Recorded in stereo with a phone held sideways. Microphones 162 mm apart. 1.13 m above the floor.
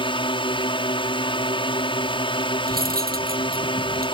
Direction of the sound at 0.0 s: 30° left (ahead or behind).